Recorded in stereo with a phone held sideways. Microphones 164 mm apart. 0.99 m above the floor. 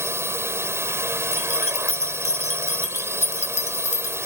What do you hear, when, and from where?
0.0 s a drone: 15° right (ahead or behind)
1.3 s keys jangling: 40° left (ahead or behind)